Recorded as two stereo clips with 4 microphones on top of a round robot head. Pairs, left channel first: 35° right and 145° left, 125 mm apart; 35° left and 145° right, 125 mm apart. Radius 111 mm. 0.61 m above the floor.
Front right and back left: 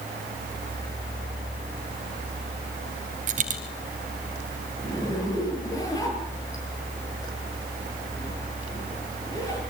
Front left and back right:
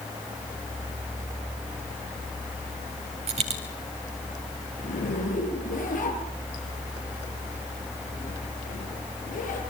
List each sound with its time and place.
3.3 s a dropped coin: 175° left, 2.5 m
4.8 s a zipper: 30° left, 8 m